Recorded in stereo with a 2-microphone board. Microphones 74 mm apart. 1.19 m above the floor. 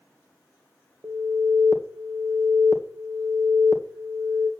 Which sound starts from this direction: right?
An alarm, at 1.0 s.